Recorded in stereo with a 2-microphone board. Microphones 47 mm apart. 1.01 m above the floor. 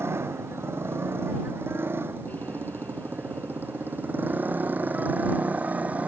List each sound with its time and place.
0.0 s a motorcycle: 55° right (ahead or behind); by 6.1 s 30° right (ahead or behind)